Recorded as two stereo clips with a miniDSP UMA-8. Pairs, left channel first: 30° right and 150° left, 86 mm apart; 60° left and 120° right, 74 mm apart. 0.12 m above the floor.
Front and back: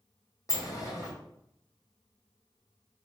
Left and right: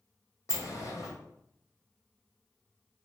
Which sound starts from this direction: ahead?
A sliding door, at 0.5 s.